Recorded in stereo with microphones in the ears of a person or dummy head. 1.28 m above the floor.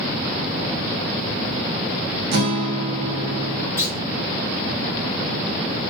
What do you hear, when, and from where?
2.3 s a guitar: 60° right (ahead or behind), 0.7 m
3.8 s a clunk: 15° left (ahead or behind), 0.8 m